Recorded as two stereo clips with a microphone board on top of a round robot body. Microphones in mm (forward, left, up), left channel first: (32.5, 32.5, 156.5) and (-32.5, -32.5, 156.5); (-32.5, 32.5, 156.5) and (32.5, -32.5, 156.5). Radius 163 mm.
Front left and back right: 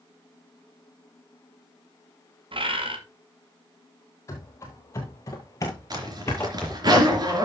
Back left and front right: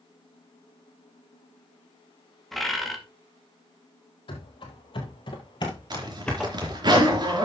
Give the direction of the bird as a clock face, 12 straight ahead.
5 o'clock.